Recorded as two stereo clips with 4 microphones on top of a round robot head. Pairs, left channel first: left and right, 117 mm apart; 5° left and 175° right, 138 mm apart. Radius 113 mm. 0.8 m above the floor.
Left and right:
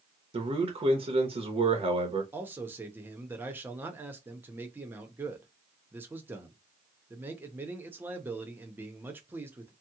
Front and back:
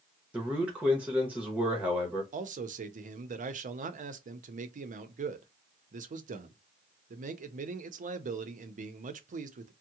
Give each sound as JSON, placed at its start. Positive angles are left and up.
{"t": 0.3, "sound": "a man speaking", "azimuth_deg": -95, "distance_m": 0.9}
{"t": 2.3, "sound": "a man speaking", "azimuth_deg": -160, "distance_m": 0.6}